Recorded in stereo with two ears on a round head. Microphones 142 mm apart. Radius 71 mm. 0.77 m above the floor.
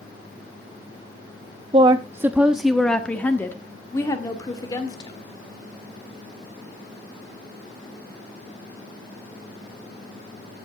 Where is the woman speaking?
35° right (ahead or behind), 0.6 m; by 5.2 s 25° left (ahead or behind), 2 m.